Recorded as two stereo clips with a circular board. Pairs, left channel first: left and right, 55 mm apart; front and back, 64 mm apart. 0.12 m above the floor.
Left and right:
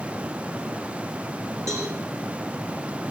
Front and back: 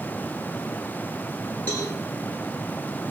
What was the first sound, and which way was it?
A cowbell, 65° right.